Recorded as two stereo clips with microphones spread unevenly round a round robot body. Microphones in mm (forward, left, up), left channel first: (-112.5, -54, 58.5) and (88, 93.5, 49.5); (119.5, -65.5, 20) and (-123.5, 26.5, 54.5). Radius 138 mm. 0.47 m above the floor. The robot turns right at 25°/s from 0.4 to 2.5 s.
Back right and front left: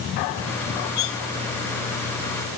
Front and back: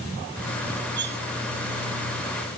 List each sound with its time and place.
1.0 s cutlery clinking: 150° right, 0.9 m; by 1.2 s 145° right, 0.9 m